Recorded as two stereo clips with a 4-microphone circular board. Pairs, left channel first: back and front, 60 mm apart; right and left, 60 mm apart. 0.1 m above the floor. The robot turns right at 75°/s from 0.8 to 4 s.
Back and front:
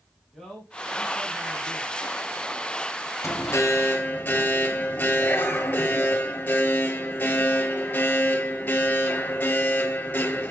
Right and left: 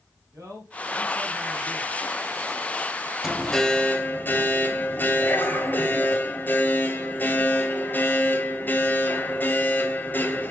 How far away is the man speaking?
About 3.5 m.